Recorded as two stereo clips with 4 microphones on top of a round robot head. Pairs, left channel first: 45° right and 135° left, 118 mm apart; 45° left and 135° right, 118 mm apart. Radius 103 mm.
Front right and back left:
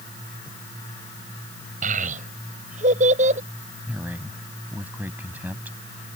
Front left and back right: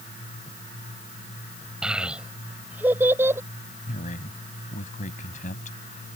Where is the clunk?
I don't hear a clunk.